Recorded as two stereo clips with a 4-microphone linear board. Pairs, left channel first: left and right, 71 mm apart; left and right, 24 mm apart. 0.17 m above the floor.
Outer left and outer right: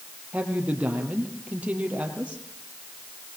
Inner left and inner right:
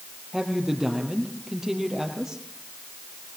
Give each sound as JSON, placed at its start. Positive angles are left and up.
{"t": 0.3, "sound": "a woman speaking", "side_deg": -20, "distance_m": 4.0}